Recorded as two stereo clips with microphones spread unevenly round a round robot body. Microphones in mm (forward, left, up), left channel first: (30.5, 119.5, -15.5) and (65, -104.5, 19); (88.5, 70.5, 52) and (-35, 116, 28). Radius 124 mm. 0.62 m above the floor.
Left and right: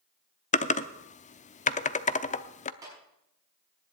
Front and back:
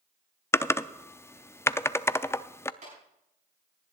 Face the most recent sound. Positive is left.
turn(degrees=-160)